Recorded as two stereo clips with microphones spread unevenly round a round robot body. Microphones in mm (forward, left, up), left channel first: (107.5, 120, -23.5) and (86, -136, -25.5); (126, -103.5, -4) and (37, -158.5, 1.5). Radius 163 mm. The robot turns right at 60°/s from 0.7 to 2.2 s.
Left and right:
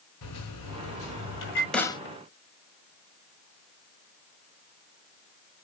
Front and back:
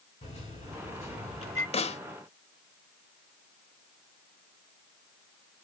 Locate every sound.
0.2 s a microwave: 100° left, 5 m; by 1.6 s 155° left, 5 m
1.7 s a snare drum: 5° right, 1.0 m; by 2.0 s 15° left, 1.0 m